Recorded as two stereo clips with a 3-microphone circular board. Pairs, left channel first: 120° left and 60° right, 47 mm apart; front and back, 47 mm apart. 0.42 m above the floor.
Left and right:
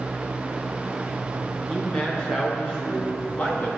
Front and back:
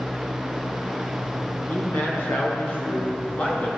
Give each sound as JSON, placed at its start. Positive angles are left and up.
{"t": 1.7, "sound": "a man speaking", "azimuth_deg": 40, "distance_m": 4.0}